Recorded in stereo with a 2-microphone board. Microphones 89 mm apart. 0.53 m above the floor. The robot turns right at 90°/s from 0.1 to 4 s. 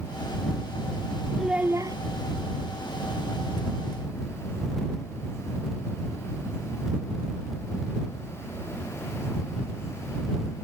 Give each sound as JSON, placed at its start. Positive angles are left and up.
{"t": 1.4, "sound": "a child speaking", "azimuth_deg": 180}